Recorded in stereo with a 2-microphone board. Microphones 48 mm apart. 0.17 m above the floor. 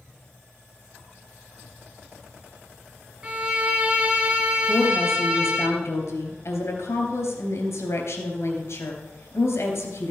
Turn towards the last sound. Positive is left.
turn(degrees=65)  # may be behind; listen again after turning